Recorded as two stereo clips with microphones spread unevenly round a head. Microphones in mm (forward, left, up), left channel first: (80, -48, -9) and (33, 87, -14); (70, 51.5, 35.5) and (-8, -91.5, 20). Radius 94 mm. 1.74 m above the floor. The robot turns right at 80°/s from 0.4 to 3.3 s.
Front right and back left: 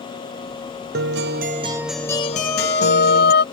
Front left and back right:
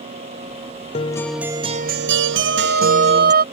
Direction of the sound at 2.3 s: 165° right.